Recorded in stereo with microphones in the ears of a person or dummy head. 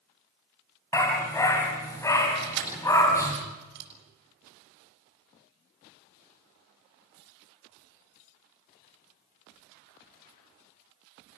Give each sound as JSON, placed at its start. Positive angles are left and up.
{"t": 0.9, "sound": "a dog barking", "side_deg": 20, "distance_m": 3.5}
{"t": 2.4, "sound": "keys jangling", "side_deg": -60, "distance_m": 7.0}